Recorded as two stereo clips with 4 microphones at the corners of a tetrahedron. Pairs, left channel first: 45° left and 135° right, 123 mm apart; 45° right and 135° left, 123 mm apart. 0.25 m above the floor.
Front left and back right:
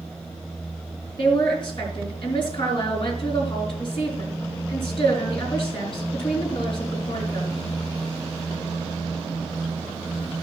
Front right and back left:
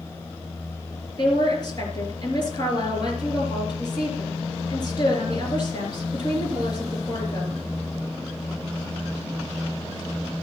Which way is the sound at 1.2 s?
5° left.